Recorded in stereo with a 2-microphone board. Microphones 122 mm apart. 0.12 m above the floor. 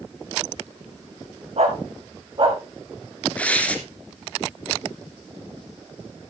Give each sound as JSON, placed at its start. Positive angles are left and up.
{"t": 1.6, "sound": "a dog barking", "side_deg": -65, "distance_m": 3.0}
{"t": 3.4, "sound": "tearing paper", "side_deg": 10, "distance_m": 2.0}